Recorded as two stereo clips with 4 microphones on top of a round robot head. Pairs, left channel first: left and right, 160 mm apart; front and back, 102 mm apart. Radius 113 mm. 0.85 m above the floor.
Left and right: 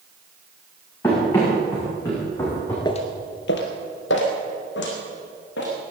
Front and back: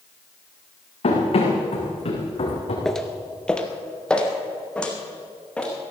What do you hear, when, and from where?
1.0 s running footsteps: 15° left, 5.5 m
2.9 s footsteps: 75° left, 0.8 m; by 5.7 s 80° left, 4.5 m